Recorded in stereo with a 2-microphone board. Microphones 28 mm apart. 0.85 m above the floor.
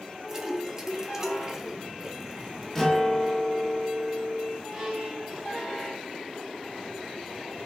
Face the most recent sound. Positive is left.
turn(degrees=-15)  # may be behind; listen again after turning